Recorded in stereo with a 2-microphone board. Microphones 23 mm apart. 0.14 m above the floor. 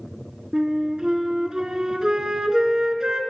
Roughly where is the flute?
Right.